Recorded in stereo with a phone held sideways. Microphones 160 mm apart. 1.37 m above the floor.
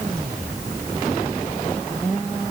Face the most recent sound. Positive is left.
No sound to turn to.